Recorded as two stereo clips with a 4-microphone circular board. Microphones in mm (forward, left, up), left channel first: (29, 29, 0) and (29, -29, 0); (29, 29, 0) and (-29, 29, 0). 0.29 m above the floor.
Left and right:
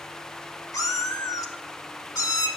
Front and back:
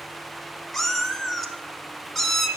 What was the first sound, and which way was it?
A cat meowing, 85° left.